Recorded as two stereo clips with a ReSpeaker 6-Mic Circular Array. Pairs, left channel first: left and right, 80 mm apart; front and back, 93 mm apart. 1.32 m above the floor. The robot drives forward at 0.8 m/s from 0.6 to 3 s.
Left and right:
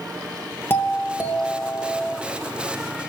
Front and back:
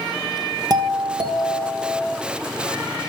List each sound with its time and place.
0.7 s a doorbell: 145° left, 1.7 m; by 2.2 s 160° left, 2.5 m